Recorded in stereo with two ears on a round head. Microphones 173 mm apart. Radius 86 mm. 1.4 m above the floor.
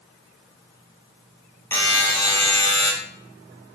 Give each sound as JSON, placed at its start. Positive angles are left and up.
{"t": 1.7, "sound": "a buzzer", "side_deg": 10, "distance_m": 0.8}